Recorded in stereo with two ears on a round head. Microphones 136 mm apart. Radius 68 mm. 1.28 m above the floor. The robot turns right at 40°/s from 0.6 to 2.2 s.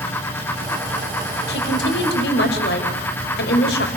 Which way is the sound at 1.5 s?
75° left (ahead or behind).